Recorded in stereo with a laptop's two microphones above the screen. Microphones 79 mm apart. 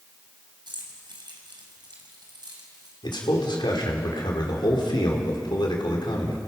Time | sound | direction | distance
0.7 | keys jangling | 80° right | 4 m
3.0 | a man speaking | 80° left | 3 m